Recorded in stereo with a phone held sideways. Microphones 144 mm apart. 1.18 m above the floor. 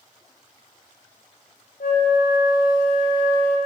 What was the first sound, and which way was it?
A flute, 75° left (ahead or behind).